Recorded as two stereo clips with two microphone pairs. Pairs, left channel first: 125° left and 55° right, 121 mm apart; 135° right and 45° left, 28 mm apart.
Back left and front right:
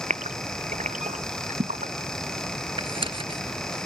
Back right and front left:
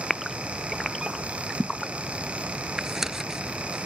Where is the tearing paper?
30° right.